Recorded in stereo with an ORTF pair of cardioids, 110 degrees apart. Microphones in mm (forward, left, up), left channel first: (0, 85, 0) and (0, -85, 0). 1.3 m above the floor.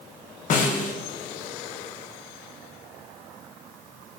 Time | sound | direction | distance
0.5 | a snare drum | 50° left | 1.4 m